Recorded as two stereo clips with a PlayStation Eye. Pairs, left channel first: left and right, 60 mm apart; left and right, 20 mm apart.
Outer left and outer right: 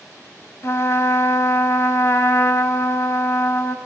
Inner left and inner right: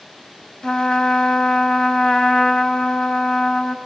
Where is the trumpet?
50° left (ahead or behind), 0.9 m.